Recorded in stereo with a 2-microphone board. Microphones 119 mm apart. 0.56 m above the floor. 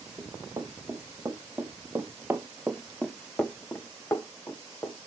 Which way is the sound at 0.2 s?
25° right (ahead or behind).